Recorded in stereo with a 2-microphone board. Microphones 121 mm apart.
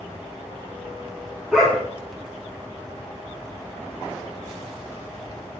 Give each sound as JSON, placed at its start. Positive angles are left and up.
{"t": 1.5, "sound": "a dog barking", "side_deg": -5, "distance_m": 3.0}